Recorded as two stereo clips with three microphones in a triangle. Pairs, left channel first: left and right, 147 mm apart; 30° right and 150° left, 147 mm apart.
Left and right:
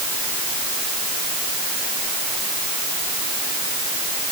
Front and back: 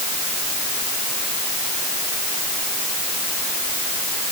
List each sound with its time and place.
Only background noise.